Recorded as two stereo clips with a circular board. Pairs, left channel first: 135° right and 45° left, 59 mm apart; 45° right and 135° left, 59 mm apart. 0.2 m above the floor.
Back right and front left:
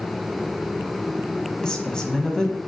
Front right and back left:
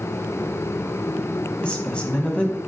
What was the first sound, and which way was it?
A woman speaking, 80° right.